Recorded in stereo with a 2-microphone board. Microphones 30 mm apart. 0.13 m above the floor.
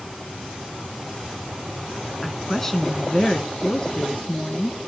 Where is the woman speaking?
5° left (ahead or behind), 1.1 m; by 4.8 s 40° left (ahead or behind), 1.7 m.